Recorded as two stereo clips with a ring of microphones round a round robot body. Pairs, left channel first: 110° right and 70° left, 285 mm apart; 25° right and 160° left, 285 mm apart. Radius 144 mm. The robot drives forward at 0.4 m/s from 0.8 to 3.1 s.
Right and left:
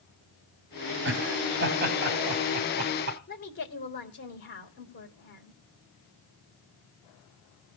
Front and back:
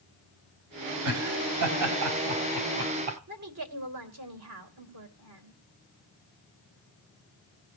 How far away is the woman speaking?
About 2.5 m.